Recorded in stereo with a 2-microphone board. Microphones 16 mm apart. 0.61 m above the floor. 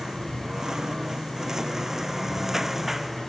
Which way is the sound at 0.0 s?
45° right (ahead or behind).